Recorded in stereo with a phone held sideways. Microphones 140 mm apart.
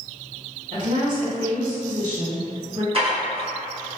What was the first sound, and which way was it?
A woman speaking, 60° right (ahead or behind).